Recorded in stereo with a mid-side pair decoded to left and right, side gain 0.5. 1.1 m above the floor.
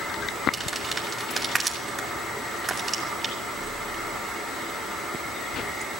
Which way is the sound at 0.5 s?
15° right.